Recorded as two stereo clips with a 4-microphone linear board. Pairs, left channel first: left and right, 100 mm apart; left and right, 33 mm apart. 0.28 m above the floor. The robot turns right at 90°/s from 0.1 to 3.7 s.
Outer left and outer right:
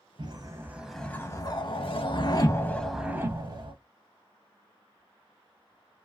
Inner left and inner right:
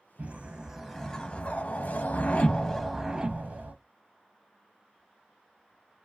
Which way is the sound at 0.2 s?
65° right.